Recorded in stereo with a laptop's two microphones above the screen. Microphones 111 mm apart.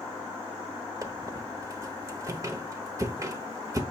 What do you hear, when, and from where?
1.0 s a squeak: 30° right (ahead or behind), 0.8 m